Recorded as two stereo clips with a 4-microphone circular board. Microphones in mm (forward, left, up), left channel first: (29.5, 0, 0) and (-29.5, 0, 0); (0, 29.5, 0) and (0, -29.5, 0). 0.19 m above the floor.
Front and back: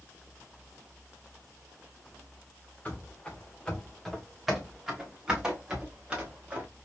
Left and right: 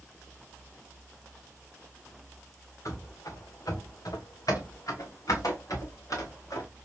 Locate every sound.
2.9 s running footsteps: 65° left, 1.4 m; by 6.7 s 115° left, 2.5 m